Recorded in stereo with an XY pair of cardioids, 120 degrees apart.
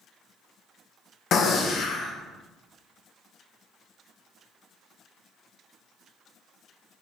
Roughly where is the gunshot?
Ahead left.